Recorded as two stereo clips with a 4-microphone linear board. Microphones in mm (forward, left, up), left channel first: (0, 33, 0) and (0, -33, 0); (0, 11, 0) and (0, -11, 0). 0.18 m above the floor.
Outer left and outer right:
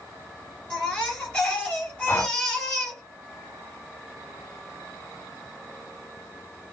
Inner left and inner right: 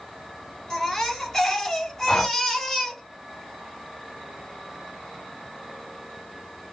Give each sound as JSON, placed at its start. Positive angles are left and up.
{"t": 0.7, "sound": "a baby crying", "side_deg": 20, "distance_m": 1.9}
{"t": 2.1, "sound": "breathing", "side_deg": 35, "distance_m": 0.7}